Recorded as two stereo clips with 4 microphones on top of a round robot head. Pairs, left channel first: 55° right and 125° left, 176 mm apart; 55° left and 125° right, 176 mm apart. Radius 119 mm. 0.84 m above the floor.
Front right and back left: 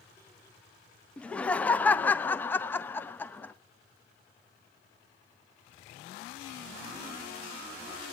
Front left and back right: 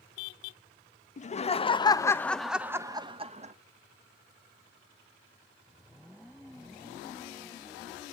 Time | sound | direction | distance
1.2 | laughter | 30° left | 1.0 m